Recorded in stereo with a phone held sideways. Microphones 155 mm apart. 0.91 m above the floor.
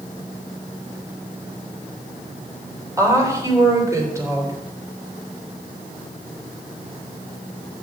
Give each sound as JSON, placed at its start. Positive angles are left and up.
{"t": 3.0, "sound": "a woman speaking", "side_deg": -20, "distance_m": 3.5}